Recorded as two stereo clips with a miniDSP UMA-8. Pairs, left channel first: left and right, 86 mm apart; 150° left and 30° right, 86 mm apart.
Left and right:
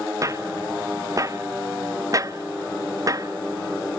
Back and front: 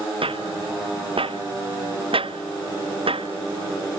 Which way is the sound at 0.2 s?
35° right.